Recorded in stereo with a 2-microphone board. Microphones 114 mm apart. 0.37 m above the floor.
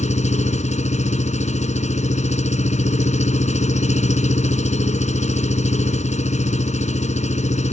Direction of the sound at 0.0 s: 75° left (ahead or behind).